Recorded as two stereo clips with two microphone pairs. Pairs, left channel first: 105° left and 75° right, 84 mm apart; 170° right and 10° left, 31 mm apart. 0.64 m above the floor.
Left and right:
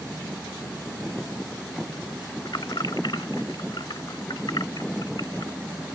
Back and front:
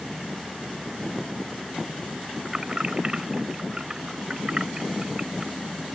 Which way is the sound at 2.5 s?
80° left.